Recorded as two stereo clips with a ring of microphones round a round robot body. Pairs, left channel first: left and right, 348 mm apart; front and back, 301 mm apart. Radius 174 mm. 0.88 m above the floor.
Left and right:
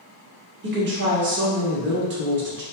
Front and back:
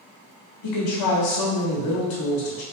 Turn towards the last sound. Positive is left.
turn(degrees=-30)